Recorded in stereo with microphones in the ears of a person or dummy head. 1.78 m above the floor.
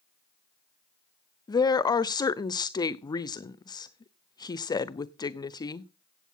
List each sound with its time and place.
1.5 s a woman speaking: 25° left (ahead or behind), 0.7 m